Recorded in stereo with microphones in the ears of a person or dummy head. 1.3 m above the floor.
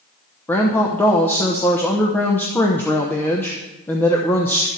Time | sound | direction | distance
0.5 | a woman speaking | 15° left (ahead or behind) | 0.9 m